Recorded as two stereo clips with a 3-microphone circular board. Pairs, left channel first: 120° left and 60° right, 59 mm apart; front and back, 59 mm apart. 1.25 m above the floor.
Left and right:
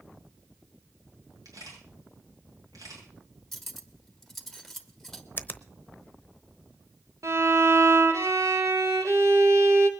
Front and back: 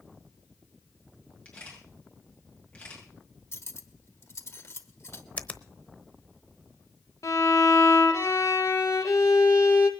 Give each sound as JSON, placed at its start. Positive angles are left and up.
{"t": 1.4, "sound": "a camera shutter", "azimuth_deg": -70, "distance_m": 7.5}
{"t": 3.5, "sound": "cutlery clinking", "azimuth_deg": 35, "distance_m": 1.3}
{"t": 5.4, "sound": "a finger snap", "azimuth_deg": 65, "distance_m": 0.9}
{"t": 7.2, "sound": "a violin", "azimuth_deg": -30, "distance_m": 1.9}